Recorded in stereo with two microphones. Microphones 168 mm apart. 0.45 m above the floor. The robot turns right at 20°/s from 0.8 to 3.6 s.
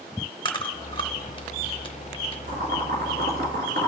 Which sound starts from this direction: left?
Chewing, at 0.5 s.